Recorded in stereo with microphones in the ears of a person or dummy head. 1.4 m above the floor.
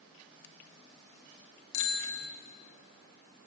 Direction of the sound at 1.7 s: 50° left (ahead or behind).